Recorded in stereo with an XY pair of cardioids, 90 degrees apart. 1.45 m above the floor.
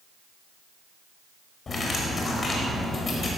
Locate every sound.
1.7 s cutlery clinking: 45° left, 4 m